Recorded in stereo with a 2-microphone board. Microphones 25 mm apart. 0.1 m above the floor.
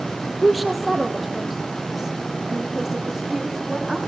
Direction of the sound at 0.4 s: 5° left (ahead or behind).